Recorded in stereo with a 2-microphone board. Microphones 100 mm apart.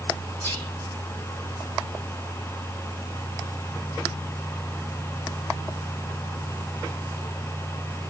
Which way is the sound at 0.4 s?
25° left (ahead or behind).